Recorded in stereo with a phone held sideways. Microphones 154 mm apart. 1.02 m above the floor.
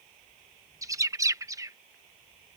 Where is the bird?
20° right (ahead or behind).